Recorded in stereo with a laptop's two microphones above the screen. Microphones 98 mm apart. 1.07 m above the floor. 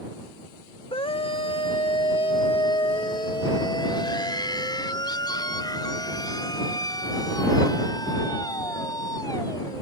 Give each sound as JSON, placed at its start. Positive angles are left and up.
{"t": 0.9, "sound": "a scream", "side_deg": 70}